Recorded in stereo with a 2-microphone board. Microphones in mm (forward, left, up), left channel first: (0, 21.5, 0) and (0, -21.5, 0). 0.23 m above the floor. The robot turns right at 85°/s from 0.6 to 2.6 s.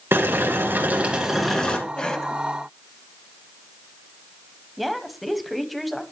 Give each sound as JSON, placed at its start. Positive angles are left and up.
{"t": 0.1, "sound": "boiling", "azimuth_deg": -70, "distance_m": 2.5}
{"t": 2.0, "sound": "a cough", "side_deg": 20, "distance_m": 1.4}
{"t": 4.8, "sound": "a woman speaking", "side_deg": 0, "distance_m": 1.1}